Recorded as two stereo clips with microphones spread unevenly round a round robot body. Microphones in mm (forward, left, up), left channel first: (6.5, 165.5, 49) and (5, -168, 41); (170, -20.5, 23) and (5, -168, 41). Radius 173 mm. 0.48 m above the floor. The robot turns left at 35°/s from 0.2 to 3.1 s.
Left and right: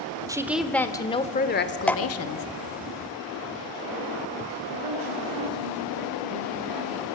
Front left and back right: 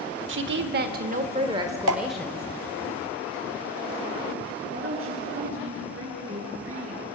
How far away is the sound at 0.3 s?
About 1.3 m.